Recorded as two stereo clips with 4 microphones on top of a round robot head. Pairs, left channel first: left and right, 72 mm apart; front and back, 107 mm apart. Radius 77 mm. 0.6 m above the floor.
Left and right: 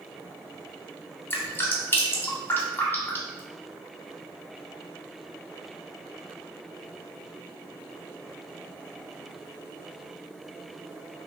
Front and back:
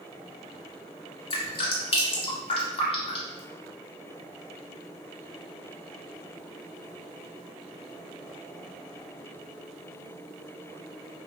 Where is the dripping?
35° left, 0.7 m.